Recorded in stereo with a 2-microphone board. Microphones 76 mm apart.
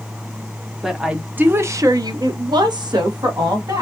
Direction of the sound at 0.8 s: 5° right (ahead or behind).